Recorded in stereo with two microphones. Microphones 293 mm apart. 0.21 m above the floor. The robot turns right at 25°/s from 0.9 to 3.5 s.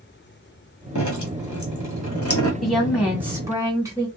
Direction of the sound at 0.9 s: 90° left.